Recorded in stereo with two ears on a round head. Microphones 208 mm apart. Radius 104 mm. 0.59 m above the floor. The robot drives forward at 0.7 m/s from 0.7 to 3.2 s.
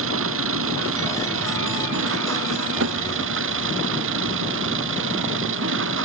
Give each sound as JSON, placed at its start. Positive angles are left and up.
{"t": 0.0, "sound": "an engine running", "side_deg": -65}